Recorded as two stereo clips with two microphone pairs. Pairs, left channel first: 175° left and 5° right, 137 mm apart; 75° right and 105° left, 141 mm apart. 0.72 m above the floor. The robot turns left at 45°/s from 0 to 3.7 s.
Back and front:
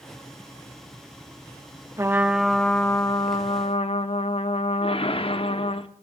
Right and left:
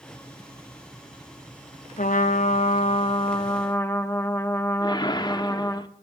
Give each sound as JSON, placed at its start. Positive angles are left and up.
{"t": 2.0, "sound": "a trumpet", "azimuth_deg": -70, "distance_m": 0.7}
{"t": 4.8, "sound": "a whoosh", "azimuth_deg": -135, "distance_m": 0.7}